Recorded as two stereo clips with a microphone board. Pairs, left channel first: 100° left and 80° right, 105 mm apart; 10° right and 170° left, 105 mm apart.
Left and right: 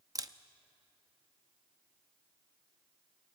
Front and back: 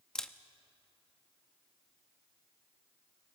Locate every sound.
0.1 s a camera shutter: 90° right, 0.6 m